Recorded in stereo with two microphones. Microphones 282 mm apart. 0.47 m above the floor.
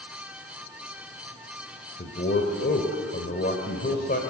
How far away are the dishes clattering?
No dishes clattering in this recording.